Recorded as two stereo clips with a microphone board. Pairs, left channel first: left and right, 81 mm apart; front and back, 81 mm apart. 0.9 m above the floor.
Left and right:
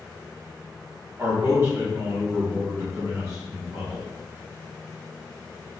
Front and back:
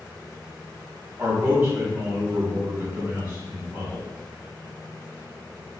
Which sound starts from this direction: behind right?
A man speaking, at 1.2 s.